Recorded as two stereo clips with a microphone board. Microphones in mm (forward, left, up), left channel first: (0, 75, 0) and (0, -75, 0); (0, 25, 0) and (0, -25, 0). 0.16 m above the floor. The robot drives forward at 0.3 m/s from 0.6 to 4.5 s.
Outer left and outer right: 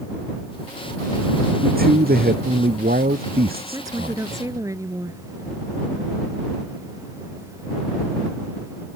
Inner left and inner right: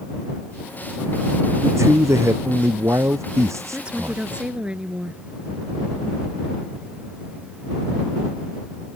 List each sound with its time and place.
1.6 s a man speaking: 80° right
3.7 s a woman speaking: 25° right (ahead or behind); by 5.2 s 20° right (ahead or behind)